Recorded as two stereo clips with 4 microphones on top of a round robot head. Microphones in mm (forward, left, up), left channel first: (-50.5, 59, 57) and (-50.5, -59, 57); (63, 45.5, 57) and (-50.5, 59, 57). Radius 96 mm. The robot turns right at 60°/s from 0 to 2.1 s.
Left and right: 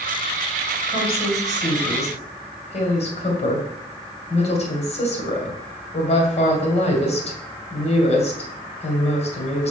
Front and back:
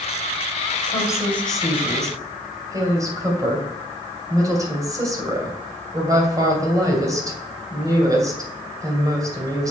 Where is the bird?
No bird in this recording.